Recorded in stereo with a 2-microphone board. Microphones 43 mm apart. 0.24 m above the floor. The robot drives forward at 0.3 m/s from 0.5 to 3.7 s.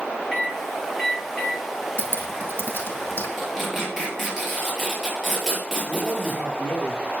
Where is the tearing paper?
5° left (ahead or behind), 6 m.